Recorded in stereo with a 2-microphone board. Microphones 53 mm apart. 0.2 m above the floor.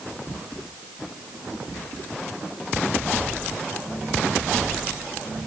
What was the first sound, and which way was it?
Only background noise.